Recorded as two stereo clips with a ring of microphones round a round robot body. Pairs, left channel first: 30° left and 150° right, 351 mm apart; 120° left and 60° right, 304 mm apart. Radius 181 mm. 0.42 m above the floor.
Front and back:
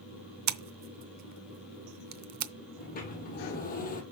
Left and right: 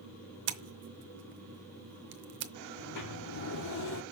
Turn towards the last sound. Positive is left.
turn(degrees=95)